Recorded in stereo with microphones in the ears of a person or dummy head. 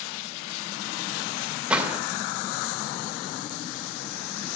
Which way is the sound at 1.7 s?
10° right (ahead or behind).